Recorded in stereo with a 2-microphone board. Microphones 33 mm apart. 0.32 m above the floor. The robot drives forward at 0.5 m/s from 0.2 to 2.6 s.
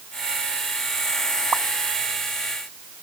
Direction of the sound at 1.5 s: 35° right (ahead or behind).